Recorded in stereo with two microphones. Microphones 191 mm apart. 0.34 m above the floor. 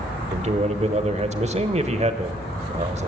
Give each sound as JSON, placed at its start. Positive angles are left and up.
{"t": 0.3, "sound": "a man speaking", "side_deg": -35, "distance_m": 1.0}